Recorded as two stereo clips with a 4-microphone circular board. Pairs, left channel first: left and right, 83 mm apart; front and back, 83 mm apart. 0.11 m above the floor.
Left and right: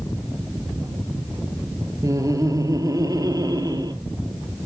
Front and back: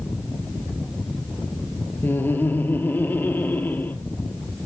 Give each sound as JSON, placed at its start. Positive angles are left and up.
{"t": 2.0, "sound": "laughter", "azimuth_deg": -60, "distance_m": 2.5}